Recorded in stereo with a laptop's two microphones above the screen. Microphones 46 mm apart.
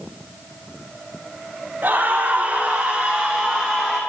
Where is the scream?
45° right (ahead or behind), 2 m; by 4.0 s 5° left (ahead or behind), 2 m.